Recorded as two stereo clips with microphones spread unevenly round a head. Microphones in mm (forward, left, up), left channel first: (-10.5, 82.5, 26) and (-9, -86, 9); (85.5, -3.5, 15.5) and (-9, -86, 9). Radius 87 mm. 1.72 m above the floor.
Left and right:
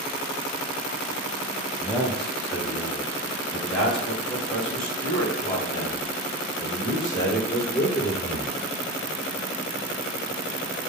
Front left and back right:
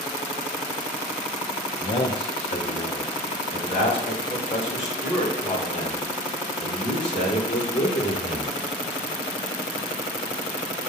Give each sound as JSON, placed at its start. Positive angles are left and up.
{"t": 1.8, "sound": "a man speaking", "azimuth_deg": 0, "distance_m": 0.7}